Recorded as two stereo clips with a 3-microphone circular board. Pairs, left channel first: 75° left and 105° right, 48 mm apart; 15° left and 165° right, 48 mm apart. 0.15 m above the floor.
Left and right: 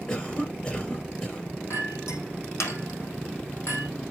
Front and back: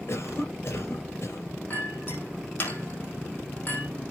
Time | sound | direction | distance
0.1 | a cough | 25° left | 3 m
1.7 | a clink | 65° left | 3.5 m